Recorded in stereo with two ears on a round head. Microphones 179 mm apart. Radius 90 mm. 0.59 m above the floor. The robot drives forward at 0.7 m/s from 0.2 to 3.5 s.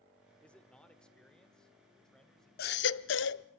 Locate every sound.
0.4 s a man speaking: 5° left (ahead or behind), 1.2 m; by 3.6 s centre (ahead or behind), 3.5 m
2.6 s a baby crying: 50° left (ahead or behind), 0.6 m; by 3.5 s 55° left (ahead or behind), 0.6 m